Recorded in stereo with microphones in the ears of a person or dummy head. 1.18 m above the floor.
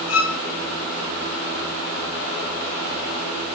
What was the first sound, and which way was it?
A violin, 85° left.